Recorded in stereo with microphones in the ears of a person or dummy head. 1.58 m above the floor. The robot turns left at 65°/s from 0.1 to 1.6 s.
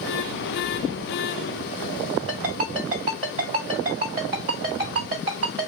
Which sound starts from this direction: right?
A ringtone, at 2.3 s.